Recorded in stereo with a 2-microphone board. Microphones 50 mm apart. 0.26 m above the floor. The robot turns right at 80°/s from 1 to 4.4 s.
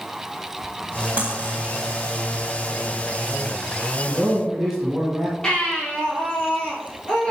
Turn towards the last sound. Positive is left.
turn(degrees=10)  # may be behind; listen again after turning